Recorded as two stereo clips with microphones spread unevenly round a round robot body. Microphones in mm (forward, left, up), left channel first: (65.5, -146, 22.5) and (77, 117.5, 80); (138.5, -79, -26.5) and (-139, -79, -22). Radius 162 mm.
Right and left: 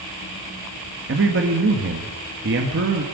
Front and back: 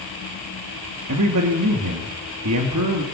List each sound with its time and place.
1.1 s a man speaking: 140° left, 1.9 m